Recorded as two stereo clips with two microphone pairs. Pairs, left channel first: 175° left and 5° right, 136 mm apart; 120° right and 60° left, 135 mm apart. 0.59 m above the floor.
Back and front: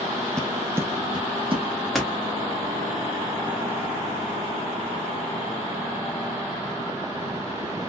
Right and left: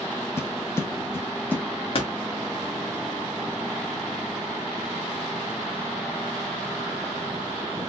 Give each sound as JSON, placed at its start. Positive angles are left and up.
{"t": 0.4, "sound": "footsteps", "azimuth_deg": -120, "distance_m": 0.6}
{"t": 1.9, "sound": "a door slam", "azimuth_deg": -100, "distance_m": 1.1}